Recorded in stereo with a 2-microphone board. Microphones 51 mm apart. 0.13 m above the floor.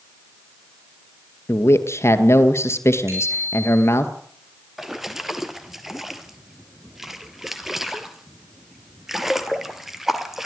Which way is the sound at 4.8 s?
5° right (ahead or behind).